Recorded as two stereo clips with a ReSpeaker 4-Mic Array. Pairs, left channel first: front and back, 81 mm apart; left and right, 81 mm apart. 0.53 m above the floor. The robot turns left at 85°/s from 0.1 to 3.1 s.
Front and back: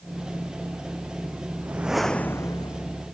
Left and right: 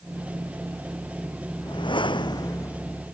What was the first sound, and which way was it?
A whoosh, 120° left.